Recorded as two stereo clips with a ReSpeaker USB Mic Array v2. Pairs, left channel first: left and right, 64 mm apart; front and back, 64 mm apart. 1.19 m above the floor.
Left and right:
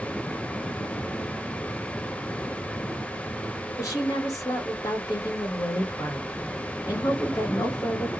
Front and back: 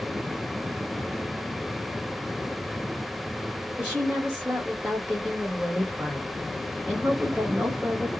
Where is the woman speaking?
105° left, 1.4 m.